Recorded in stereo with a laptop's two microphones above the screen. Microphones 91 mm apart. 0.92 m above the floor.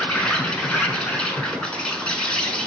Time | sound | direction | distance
0.0 | an insect | 10° left (ahead or behind) | 0.9 m